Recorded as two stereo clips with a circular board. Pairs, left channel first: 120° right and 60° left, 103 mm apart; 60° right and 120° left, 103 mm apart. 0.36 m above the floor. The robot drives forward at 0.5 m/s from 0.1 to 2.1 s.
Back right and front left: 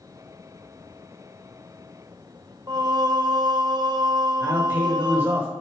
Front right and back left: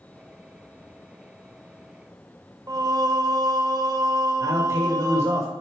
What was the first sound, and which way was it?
Singing, 90° left.